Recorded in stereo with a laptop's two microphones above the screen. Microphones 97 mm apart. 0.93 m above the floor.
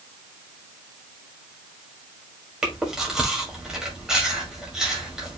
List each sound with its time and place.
2.6 s chewing: 5° right (ahead or behind), 1.8 m